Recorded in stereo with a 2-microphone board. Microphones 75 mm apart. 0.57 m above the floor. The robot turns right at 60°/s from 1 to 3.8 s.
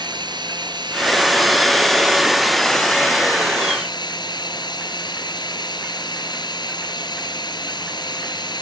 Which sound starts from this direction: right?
Running water, at 0.0 s.